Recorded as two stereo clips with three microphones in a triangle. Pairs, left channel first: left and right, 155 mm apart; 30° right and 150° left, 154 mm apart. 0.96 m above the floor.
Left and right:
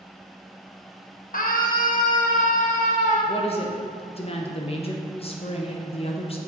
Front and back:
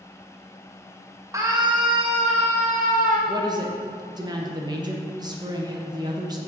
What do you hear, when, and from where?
1.3 s a scream: 85° left, 1.0 m; by 3.2 s 125° left, 1.5 m
3.3 s a woman speaking: 105° left, 0.9 m